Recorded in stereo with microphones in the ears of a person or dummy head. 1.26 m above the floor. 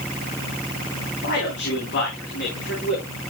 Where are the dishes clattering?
No dishes clattering in this recording.